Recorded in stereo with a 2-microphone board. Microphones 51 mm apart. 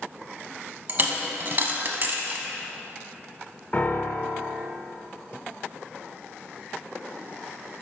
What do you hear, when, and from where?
0.9 s a dropped coin: 40° right (ahead or behind), 0.7 m
3.7 s a piano: 30° left (ahead or behind), 0.5 m